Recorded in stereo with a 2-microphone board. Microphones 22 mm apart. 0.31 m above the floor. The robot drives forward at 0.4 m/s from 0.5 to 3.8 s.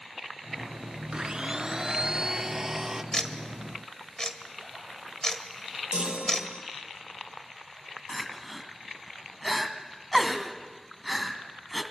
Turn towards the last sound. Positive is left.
turn(degrees=-5)  # may be behind; listen again after turning